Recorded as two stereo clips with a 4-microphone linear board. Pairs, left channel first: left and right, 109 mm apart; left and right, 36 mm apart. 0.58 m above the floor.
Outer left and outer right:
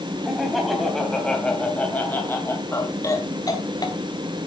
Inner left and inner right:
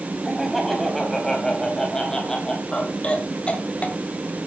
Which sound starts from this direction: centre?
Laughter, at 0.2 s.